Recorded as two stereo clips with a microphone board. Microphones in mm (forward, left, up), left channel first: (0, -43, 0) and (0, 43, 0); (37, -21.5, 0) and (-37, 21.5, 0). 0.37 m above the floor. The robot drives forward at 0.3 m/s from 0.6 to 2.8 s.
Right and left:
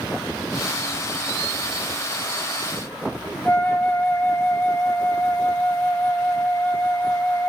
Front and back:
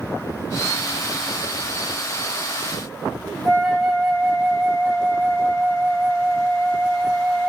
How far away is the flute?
About 1.9 m.